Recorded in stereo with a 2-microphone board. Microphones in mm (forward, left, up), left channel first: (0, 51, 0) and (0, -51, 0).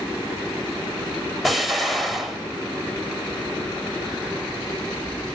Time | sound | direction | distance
1.4 | an explosion | centre (ahead or behind) | 1.0 m